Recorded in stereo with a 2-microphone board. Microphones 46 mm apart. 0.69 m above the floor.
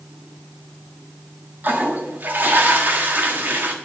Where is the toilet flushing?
50° right (ahead or behind), 1.5 m.